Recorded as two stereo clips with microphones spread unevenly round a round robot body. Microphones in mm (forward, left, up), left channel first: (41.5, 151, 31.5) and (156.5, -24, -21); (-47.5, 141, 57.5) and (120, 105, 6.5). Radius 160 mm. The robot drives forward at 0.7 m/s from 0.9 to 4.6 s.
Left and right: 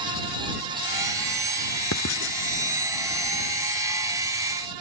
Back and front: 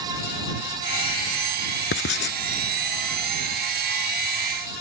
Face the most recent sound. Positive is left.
turn(degrees=165)